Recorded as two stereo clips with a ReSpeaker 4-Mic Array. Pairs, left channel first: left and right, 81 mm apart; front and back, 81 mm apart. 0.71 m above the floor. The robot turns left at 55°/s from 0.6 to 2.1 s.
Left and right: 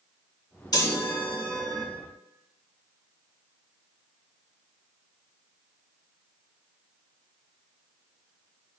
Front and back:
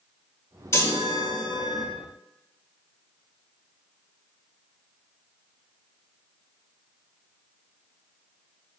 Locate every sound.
0.7 s a chime: 55° left, 2.0 m; by 1.9 s 5° right, 2.0 m